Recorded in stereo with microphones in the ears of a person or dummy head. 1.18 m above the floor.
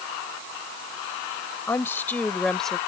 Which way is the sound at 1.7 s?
15° left (ahead or behind).